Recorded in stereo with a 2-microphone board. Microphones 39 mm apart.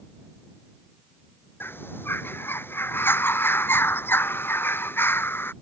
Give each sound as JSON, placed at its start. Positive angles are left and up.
{"t": 1.6, "sound": "a bird", "side_deg": 75}